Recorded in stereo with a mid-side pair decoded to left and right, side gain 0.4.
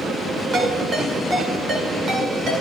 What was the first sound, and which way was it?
A ringtone, 55° right.